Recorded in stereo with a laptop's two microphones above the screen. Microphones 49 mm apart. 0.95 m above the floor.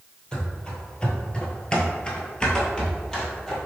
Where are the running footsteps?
20° left (ahead or behind), 1.3 m; by 3.6 s 10° left (ahead or behind), 1.4 m.